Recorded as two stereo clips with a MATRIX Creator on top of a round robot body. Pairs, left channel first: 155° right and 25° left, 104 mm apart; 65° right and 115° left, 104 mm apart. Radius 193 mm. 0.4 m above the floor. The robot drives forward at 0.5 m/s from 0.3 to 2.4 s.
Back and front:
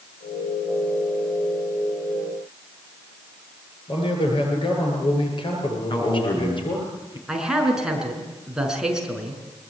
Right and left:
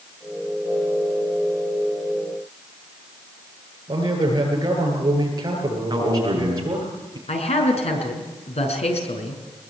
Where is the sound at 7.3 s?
60° right, 6 m.